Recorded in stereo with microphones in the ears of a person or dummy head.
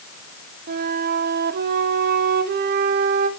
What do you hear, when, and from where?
0.7 s a flute: 55° right (ahead or behind), 0.7 m